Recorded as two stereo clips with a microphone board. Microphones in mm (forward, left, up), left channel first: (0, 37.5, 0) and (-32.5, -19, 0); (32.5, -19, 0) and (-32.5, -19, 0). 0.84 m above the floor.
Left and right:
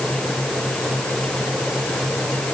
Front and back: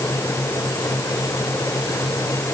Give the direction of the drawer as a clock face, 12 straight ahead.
I don't hear a drawer.